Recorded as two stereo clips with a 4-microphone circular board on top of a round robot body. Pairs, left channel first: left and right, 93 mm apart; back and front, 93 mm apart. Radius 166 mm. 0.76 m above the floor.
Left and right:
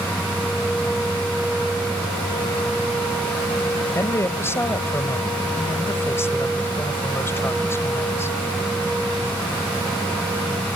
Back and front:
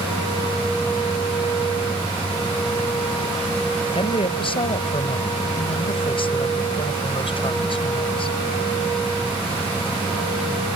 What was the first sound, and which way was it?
A woman speaking, 155° left.